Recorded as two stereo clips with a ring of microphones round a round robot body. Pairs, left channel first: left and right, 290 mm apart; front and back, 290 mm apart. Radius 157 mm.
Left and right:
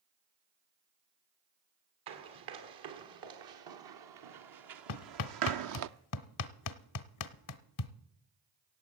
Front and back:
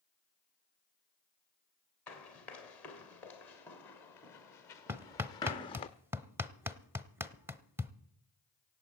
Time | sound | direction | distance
2.1 | running footsteps | 85° right | 3 m
4.9 | hammering | 100° left | 0.8 m